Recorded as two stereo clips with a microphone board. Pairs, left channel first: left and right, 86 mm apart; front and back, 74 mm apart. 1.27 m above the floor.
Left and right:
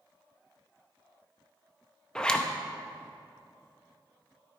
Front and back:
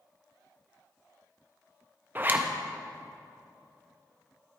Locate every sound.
2.1 s a zipper: 165° left, 0.6 m